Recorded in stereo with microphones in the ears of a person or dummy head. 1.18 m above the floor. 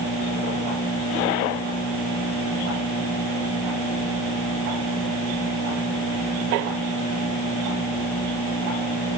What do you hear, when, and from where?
Only background noise.